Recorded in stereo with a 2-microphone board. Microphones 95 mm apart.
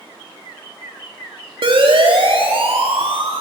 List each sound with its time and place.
1.6 s a siren: 65° right (ahead or behind), 4 m; by 3.4 s 75° right (ahead or behind), 6 m